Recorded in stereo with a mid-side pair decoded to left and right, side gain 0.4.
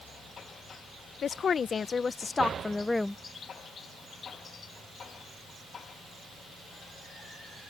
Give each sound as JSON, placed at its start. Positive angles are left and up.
{"t": 1.2, "sound": "a woman speaking", "azimuth_deg": 60}